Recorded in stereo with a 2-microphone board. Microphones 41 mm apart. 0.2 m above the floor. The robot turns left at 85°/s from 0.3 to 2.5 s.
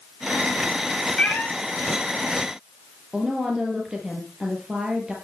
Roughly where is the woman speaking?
Centre.